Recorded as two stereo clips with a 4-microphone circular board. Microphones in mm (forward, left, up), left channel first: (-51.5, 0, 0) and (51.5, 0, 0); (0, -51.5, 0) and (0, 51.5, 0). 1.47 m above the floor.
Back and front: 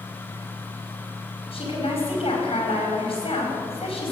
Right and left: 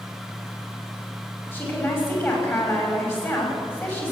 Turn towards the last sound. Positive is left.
turn(degrees=-155)